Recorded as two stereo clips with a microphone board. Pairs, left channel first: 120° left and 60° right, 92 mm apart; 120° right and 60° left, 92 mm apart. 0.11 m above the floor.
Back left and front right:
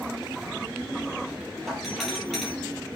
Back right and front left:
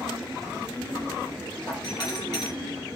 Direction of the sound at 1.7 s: 150° right.